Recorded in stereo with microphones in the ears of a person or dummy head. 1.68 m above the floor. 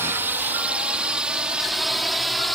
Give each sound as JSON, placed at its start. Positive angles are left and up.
{"t": 0.0, "sound": "a drone", "side_deg": -10}